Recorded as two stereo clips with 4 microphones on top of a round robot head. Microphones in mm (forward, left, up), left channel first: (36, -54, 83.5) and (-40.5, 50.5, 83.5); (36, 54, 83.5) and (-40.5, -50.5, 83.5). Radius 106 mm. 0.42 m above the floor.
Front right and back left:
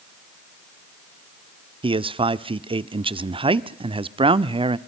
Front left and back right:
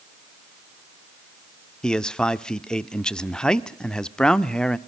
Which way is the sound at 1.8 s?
135° left.